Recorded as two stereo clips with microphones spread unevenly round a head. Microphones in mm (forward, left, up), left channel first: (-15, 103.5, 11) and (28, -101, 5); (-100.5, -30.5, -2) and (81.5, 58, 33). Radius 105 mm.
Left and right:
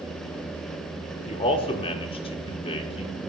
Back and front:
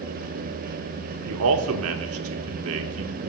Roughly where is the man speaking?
Ahead left.